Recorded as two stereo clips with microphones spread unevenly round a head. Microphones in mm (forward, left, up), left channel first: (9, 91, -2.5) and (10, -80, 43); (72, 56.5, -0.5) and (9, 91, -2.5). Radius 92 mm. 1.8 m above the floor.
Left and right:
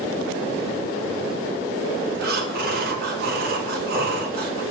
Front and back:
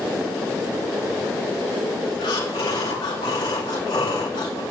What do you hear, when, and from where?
2.2 s breathing: 55° right, 2.0 m